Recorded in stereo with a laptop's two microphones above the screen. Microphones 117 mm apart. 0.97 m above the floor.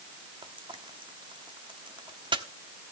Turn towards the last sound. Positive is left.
turn(degrees=-45)  # may be behind; listen again after turning